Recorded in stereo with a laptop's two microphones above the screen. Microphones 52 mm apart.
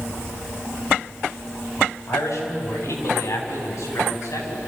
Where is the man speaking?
90° left, 5 m; by 4.6 s 80° left, 6.5 m.